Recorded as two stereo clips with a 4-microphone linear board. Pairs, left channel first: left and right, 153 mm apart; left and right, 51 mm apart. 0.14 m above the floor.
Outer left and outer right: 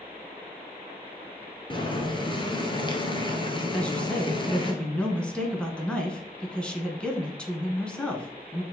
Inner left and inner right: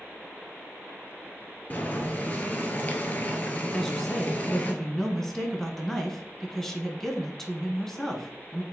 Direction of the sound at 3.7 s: 5° left (ahead or behind).